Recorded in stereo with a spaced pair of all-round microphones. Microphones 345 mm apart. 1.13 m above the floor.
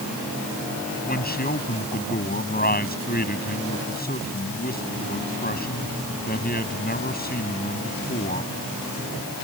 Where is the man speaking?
25° left (ahead or behind).